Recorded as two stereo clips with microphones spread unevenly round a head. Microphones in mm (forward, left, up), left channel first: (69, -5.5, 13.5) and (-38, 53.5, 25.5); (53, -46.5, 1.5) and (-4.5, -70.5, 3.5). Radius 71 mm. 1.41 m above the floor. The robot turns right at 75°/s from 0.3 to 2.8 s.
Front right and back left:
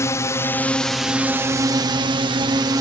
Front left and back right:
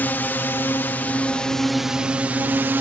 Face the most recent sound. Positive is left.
turn(degrees=-165)